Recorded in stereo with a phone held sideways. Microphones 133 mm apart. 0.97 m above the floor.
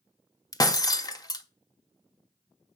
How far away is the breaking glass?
About 0.8 m.